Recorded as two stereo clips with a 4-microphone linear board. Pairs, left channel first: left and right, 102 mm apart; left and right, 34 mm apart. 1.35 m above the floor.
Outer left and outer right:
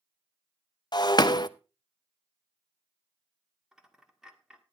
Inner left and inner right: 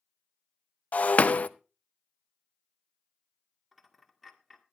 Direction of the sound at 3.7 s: 5° right (ahead or behind).